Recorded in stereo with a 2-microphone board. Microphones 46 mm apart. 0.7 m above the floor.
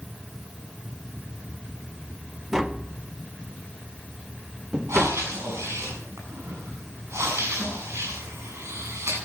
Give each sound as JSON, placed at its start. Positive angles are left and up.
{"t": 2.5, "sound": "tapping", "side_deg": -15, "distance_m": 0.8}
{"t": 4.9, "sound": "breathing", "side_deg": -80, "distance_m": 7.0}